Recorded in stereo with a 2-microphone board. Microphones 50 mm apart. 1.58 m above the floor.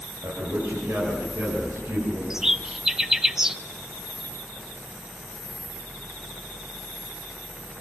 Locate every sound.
0.2 s a man speaking: 55° right (ahead or behind), 7.5 m
2.3 s a bird: 10° right (ahead or behind), 0.5 m